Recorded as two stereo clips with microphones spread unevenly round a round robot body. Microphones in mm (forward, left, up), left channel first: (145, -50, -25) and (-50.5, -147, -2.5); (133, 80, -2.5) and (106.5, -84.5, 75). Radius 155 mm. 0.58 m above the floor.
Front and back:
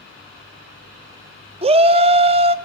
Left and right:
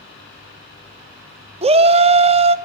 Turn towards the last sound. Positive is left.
turn(degrees=-165)